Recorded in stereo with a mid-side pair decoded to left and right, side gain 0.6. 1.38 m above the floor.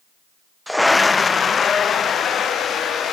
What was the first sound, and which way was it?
A scream, 5° right.